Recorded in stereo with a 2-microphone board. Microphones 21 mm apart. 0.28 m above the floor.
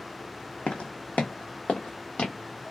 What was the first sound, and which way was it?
Footsteps, 70° left (ahead or behind).